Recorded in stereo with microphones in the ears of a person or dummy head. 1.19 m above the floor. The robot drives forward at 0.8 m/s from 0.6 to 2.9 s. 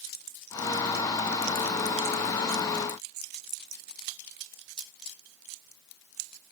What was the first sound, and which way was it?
Only background noise.